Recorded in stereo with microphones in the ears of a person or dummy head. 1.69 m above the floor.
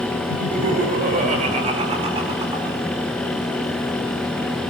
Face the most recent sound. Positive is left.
turn(degrees=-20)  # may be behind; listen again after turning